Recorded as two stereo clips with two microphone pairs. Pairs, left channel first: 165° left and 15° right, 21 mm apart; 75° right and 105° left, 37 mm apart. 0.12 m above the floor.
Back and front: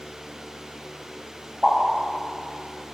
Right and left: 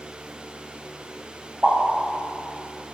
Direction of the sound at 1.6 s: 25° left.